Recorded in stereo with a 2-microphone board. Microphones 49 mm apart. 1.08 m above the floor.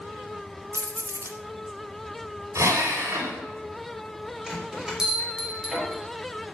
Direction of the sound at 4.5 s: 15° right (ahead or behind).